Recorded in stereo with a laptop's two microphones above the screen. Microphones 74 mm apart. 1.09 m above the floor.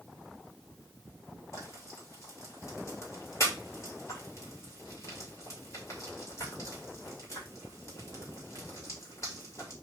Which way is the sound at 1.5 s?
45° left (ahead or behind).